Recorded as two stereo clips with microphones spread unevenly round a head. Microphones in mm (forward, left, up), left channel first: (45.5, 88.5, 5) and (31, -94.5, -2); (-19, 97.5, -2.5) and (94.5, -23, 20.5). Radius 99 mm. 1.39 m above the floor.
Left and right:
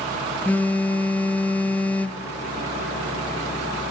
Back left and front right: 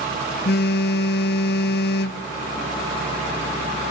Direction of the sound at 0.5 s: 165° left.